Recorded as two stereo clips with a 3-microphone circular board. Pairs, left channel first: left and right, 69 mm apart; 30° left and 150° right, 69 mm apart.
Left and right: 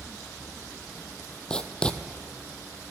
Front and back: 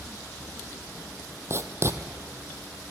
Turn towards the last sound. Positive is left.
turn(degrees=165)